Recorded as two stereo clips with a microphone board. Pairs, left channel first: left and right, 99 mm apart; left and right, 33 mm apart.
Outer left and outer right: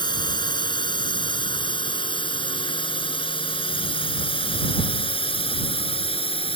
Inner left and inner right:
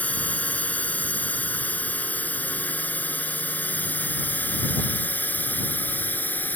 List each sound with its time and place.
0.0 s a drone: 50° left (ahead or behind); by 6.6 s 65° left (ahead or behind)